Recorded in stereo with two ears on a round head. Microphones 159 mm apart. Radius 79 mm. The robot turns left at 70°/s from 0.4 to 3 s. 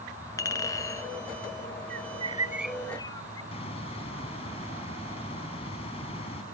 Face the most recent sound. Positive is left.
turn(degrees=35)  # may be behind; listen again after turning